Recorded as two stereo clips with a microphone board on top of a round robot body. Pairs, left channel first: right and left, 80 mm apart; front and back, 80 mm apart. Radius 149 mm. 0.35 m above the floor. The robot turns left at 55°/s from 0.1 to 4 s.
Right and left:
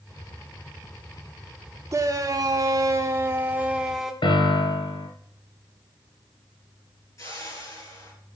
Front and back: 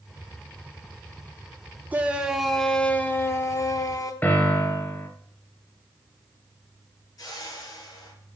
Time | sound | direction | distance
1.9 | a shout | 120° left | 1.1 m
4.2 | a piano | 70° right | 1.7 m
7.2 | a whoosh | 40° right | 5 m